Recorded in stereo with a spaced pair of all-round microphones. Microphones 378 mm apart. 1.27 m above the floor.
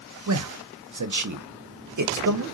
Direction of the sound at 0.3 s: 50° right (ahead or behind).